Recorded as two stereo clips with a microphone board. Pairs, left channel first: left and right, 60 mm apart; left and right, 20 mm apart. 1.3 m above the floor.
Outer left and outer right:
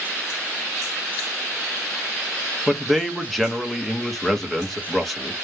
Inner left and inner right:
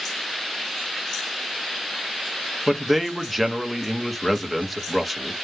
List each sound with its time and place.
2.7 s a man speaking: 5° left (ahead or behind), 0.7 m